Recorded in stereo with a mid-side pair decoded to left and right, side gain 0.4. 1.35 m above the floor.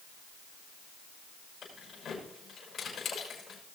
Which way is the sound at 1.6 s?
60° left.